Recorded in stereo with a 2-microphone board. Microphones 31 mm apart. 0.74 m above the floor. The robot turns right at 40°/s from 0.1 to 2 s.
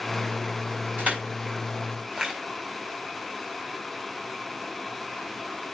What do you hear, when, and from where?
1.0 s crushing: 60° right (ahead or behind), 5 m; by 2.3 s 20° right (ahead or behind), 5 m